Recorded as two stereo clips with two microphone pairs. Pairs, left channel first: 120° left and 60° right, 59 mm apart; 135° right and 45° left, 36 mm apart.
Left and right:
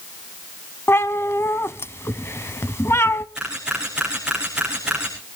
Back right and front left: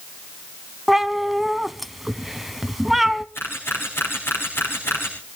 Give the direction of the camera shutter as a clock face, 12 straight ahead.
5 o'clock.